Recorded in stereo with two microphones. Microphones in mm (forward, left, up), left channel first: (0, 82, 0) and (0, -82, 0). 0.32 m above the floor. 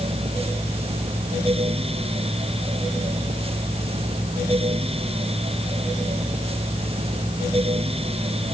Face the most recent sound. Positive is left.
No sound to turn to.